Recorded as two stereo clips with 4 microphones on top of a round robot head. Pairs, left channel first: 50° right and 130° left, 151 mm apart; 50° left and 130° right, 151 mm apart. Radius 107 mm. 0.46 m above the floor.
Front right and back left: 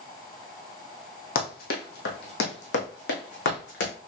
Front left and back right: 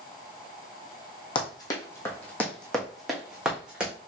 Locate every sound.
1.4 s running footsteps: 10° right, 1.4 m; by 3.9 s 45° right, 2.5 m